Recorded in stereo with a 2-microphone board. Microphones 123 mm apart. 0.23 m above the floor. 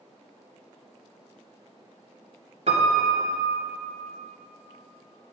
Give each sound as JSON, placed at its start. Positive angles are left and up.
{"t": 2.7, "sound": "a piano", "side_deg": -65, "distance_m": 1.5}